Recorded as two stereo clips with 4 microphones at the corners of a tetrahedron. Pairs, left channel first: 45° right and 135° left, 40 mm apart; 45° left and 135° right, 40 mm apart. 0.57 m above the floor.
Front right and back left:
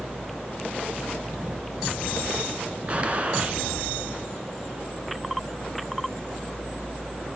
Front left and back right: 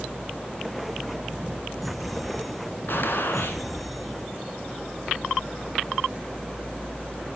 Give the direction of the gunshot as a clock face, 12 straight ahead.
9 o'clock.